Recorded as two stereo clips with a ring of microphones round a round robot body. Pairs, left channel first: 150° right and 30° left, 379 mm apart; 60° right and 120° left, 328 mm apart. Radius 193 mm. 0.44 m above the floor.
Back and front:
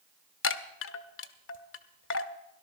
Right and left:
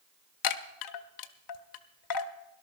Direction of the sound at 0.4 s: 90° right.